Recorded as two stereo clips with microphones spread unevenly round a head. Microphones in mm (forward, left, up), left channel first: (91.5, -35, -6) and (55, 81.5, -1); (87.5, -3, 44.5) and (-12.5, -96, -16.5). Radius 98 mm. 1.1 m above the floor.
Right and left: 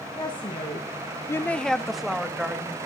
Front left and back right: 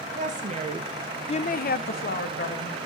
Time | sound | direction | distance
0.1 | a woman speaking | 140° right | 1.7 m